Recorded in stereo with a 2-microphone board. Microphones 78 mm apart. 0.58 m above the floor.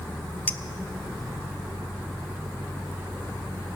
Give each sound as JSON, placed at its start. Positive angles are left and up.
{"t": 0.5, "sound": "a clink", "side_deg": 20, "distance_m": 0.6}